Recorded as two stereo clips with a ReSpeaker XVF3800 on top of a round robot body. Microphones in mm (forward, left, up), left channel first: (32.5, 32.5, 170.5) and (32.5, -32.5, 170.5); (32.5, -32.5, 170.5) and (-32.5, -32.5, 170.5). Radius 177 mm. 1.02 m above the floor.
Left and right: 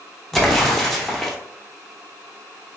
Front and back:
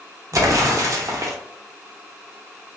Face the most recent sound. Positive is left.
turn(degrees=175)